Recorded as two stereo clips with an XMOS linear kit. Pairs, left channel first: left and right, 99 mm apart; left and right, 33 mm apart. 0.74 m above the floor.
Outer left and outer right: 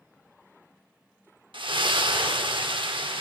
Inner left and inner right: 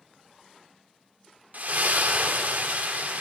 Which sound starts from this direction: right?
A splash, at 1.5 s.